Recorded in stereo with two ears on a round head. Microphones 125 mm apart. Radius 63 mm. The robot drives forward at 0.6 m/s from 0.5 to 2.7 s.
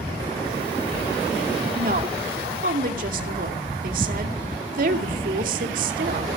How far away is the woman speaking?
About 2 m.